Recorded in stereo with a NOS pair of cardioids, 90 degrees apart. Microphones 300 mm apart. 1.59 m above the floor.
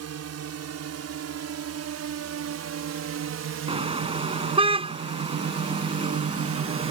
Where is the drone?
60° right; by 6.9 s 80° right.